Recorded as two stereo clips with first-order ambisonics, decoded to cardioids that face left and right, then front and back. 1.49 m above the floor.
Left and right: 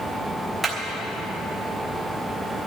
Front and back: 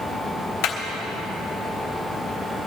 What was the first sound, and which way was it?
Hammering, 10° right.